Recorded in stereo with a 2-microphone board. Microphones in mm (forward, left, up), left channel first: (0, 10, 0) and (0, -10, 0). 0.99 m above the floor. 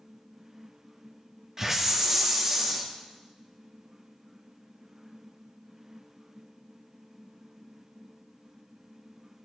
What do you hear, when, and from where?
1.6 s a hiss: 20° right (ahead or behind), 1.9 m